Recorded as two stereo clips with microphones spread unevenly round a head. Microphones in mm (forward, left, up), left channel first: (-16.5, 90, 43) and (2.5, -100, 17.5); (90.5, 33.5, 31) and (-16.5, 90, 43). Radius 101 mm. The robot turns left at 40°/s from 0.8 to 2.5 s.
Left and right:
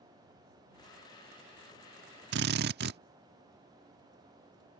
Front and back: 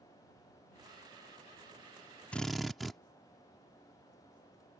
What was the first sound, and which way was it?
A drill, 115° right.